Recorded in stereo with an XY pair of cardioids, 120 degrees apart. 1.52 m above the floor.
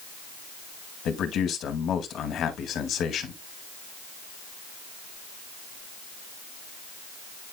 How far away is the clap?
No clap in this recording.